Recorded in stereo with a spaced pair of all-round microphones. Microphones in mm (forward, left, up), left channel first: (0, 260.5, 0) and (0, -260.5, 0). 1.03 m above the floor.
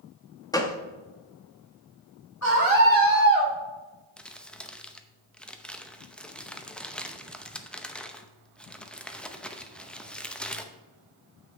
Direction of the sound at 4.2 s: Centre (ahead or behind).